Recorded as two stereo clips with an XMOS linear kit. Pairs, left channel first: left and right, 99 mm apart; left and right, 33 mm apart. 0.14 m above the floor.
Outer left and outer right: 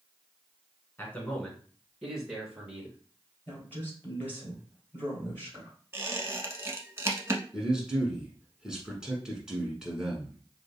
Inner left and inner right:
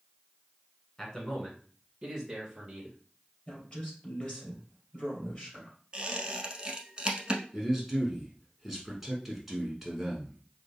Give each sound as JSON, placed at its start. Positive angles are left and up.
{"t": 1.0, "sound": "a man speaking", "side_deg": 20, "distance_m": 1.2}
{"t": 3.5, "sound": "a woman speaking", "side_deg": 20, "distance_m": 2.5}
{"t": 5.9, "sound": "a squeak", "side_deg": -30, "distance_m": 0.7}
{"t": 7.5, "sound": "a man speaking", "side_deg": -5, "distance_m": 1.3}